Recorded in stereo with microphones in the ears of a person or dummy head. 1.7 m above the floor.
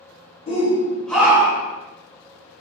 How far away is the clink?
I don't hear a clink.